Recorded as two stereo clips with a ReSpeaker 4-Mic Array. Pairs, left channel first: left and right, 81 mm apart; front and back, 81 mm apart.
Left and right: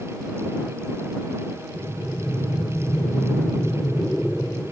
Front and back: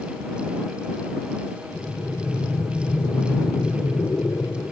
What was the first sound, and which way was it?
Breathing, 5° left.